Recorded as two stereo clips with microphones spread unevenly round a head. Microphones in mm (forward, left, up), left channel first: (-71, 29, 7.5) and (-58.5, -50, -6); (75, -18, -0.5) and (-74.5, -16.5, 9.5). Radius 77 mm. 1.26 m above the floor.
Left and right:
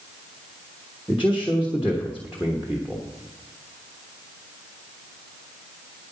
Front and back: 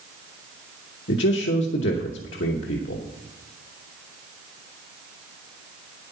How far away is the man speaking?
About 1.1 m.